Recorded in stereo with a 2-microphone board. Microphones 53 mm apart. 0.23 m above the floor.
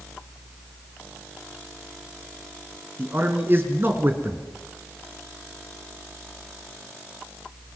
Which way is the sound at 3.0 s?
45° right (ahead or behind).